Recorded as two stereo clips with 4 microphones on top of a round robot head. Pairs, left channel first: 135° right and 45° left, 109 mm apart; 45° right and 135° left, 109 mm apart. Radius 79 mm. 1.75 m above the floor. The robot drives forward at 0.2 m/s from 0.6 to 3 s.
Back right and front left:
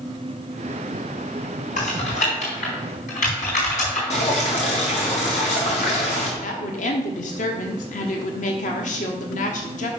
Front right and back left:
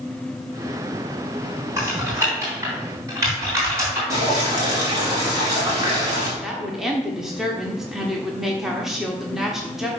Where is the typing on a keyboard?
155° right, 3.5 m.